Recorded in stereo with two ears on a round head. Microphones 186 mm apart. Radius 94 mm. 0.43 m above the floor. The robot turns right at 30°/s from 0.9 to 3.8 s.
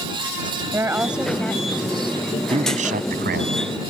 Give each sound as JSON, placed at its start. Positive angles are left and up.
{"t": 0.7, "sound": "a woman speaking", "azimuth_deg": -10}
{"t": 2.5, "sound": "a man speaking", "azimuth_deg": -150}